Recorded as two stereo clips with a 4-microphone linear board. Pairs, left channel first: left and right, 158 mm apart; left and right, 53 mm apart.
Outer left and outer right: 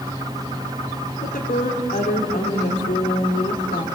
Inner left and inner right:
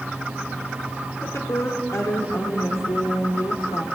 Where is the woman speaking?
70° left (ahead or behind), 4 m.